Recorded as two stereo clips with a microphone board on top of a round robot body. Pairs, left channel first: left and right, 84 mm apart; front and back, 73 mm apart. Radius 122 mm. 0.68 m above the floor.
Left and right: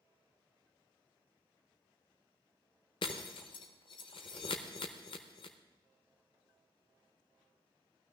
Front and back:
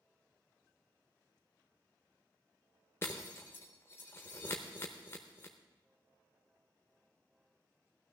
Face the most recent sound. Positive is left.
turn(degrees=60)